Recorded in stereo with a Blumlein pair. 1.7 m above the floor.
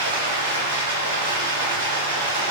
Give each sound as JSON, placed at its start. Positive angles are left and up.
{"t": 0.0, "sound": "running water", "azimuth_deg": -55, "distance_m": 1.1}